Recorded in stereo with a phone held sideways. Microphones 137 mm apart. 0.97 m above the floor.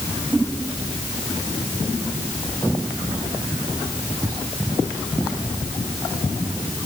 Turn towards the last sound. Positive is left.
No sound to turn to.